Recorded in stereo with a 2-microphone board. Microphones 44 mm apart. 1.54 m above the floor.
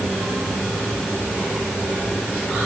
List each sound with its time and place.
Only background noise.